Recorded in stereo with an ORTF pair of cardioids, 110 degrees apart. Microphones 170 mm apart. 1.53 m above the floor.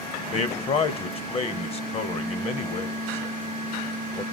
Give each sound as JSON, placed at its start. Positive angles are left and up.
{"t": 0.3, "sound": "a man speaking", "azimuth_deg": 35, "distance_m": 0.8}